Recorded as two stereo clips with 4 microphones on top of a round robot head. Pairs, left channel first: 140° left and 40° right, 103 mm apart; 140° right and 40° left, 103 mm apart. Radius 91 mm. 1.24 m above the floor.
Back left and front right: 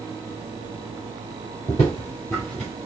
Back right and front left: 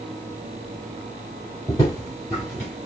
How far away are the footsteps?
About 1.4 m.